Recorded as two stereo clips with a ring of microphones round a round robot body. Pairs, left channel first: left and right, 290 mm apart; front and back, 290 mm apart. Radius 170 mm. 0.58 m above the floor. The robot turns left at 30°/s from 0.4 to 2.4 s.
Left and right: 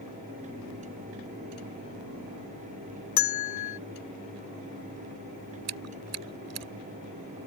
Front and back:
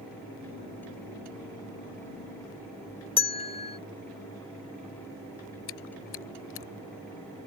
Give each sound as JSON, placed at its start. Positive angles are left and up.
{"t": 3.2, "sound": "a bell", "azimuth_deg": 70}
{"t": 5.7, "sound": "chewing", "azimuth_deg": -50}